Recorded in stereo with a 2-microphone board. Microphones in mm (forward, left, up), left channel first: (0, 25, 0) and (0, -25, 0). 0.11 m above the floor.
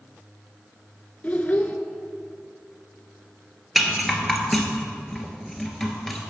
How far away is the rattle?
About 1.1 m.